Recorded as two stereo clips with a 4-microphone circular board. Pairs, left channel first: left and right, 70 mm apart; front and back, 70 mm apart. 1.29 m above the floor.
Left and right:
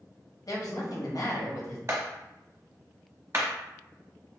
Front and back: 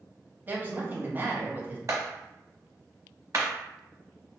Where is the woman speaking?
120° left, 0.7 m.